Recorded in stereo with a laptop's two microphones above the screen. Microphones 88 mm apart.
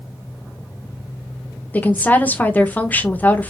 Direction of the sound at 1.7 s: 20° left (ahead or behind).